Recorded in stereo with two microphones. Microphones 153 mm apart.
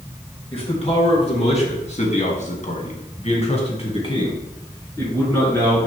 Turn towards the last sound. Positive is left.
turn(degrees=15)  # may be behind; listen again after turning